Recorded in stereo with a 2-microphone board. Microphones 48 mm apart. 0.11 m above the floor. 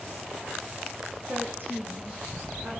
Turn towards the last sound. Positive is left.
turn(degrees=-45)  # may be behind; listen again after turning